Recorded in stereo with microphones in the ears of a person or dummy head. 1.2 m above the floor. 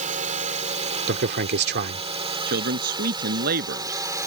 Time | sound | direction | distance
0.0 | a drone | 40° right (ahead or behind) | ?
1.1 | a man speaking | 60° right (ahead or behind) | ?
2.5 | a man speaking | 60° right (ahead or behind) | ?